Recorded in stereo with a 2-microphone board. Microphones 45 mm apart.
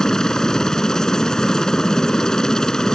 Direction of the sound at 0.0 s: 15° left (ahead or behind).